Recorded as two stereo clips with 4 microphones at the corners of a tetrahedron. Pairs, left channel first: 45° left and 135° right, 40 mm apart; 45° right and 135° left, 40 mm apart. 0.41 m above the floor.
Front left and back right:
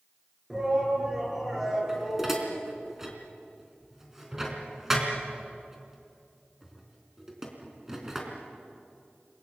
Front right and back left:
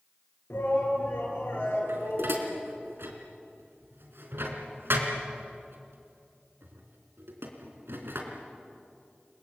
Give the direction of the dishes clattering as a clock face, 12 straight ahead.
7 o'clock.